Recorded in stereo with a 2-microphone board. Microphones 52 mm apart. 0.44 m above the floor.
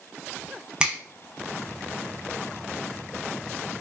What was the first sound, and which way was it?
A finger snap, 20° right (ahead or behind).